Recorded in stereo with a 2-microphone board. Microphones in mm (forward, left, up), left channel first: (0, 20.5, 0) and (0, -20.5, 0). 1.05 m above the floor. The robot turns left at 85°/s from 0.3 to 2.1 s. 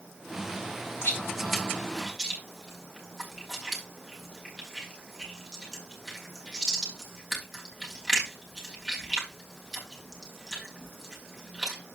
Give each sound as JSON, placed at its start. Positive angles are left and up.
{"t": 1.0, "sound": "chewing", "side_deg": 75, "distance_m": 3.0}